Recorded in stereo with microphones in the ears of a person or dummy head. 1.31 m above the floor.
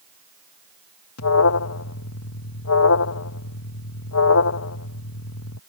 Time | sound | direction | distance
1.2 | an alarm | 75° left (ahead or behind) | ?